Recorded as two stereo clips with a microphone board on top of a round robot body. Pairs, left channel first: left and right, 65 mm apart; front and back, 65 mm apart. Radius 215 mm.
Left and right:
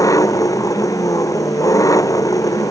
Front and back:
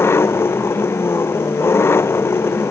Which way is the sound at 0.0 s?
55° left.